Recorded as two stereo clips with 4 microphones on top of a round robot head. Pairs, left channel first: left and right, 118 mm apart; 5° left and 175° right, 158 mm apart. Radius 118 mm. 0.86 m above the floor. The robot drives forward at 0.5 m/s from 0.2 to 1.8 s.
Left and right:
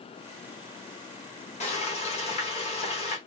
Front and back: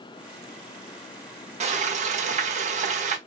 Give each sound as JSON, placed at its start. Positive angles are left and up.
{"t": 1.6, "sound": "frying", "azimuth_deg": 135, "distance_m": 1.3}